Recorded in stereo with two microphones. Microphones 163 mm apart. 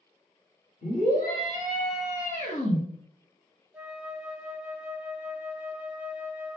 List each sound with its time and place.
0.8 s a scream: 60° left (ahead or behind), 2 m; by 2.8 s 35° left (ahead or behind), 1.3 m
3.7 s a flute: 10° right (ahead or behind), 0.5 m